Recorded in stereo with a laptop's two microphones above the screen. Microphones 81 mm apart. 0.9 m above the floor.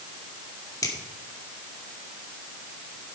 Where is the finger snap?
45° left (ahead or behind), 1.9 m.